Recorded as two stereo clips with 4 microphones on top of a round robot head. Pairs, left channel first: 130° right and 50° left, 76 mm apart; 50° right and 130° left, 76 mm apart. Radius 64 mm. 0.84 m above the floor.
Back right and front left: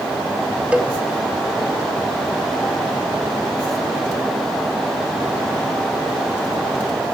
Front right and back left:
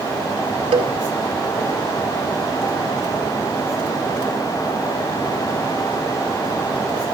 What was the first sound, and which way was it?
A cowbell, 125° left.